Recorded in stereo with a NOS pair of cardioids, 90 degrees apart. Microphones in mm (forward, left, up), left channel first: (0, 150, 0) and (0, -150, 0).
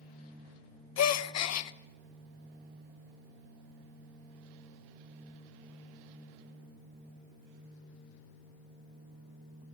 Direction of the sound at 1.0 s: 60° left.